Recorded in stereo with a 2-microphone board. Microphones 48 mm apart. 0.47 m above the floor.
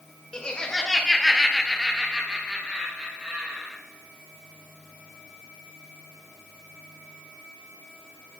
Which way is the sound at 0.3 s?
15° left (ahead or behind).